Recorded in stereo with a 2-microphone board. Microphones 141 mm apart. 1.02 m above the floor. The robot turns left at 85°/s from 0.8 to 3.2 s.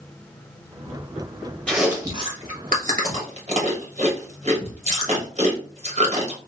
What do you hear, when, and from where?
1.7 s chewing: 10° left (ahead or behind), 1.3 m; by 6.4 s 55° right (ahead or behind), 1.3 m